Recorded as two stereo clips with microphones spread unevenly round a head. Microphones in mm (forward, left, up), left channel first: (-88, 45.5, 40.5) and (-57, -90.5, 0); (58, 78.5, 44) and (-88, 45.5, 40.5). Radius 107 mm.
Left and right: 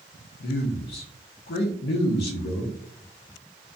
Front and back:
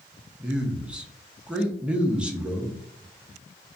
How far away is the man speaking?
About 0.5 m.